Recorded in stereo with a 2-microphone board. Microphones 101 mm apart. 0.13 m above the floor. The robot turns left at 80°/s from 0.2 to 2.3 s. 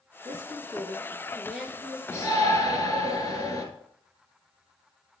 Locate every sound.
0.2 s a woman speaking: 70° right, 2.5 m; by 2.0 s 145° left, 2.5 m
2.1 s a shout: 25° left (ahead or behind), 2.5 m; by 3.6 s 35° left (ahead or behind), 2.5 m